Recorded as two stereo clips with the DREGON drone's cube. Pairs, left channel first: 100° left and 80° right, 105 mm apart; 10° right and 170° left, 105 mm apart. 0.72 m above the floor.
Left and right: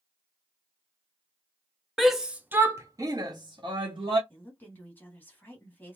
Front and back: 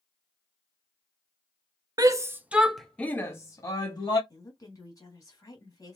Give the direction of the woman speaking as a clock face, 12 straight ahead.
11 o'clock.